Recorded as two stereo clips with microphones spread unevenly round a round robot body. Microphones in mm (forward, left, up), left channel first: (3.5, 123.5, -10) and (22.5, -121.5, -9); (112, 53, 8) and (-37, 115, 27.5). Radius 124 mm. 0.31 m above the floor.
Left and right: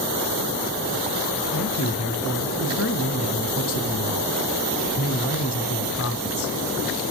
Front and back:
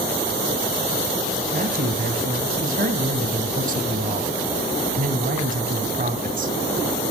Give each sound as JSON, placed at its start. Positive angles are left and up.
{"t": 1.5, "sound": "a man speaking", "azimuth_deg": 125, "distance_m": 2.5}